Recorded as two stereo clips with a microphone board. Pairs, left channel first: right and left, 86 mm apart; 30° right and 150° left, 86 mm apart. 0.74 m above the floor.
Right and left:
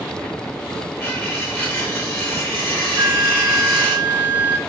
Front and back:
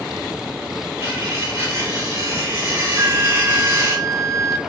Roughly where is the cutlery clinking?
Behind right.